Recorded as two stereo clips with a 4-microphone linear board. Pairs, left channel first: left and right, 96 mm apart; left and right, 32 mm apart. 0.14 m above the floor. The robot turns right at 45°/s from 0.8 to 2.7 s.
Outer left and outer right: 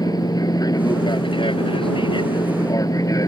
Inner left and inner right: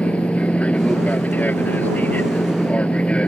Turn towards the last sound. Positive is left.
turn(degrees=135)